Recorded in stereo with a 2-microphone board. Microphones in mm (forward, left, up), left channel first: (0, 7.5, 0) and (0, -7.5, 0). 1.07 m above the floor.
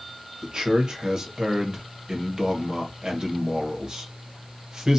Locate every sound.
0.4 s a man speaking: 55° right (ahead or behind), 1.2 m